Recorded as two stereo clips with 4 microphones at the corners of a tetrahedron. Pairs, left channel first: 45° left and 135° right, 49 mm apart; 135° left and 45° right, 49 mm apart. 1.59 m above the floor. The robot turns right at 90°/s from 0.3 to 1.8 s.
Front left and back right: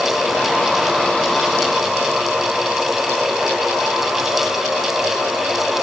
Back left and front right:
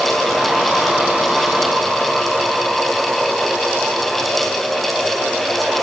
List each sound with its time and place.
Only background noise.